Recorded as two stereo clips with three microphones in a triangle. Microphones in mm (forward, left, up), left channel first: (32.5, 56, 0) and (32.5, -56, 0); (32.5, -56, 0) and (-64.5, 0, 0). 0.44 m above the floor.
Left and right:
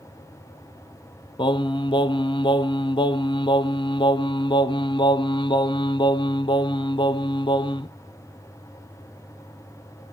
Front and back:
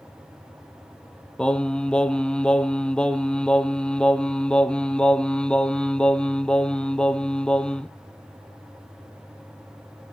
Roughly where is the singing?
Ahead left.